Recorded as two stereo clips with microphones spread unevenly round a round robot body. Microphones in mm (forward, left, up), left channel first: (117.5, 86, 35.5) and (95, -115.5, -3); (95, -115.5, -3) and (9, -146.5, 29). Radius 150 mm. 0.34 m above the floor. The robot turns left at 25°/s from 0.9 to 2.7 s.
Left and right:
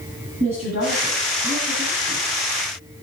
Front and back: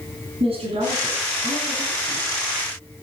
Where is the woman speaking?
160° right, 6 m; by 2.2 s 165° left, 6 m.